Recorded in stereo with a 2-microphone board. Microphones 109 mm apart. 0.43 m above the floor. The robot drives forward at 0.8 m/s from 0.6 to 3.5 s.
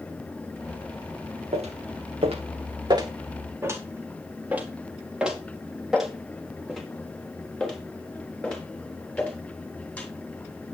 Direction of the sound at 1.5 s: 75° right (ahead or behind).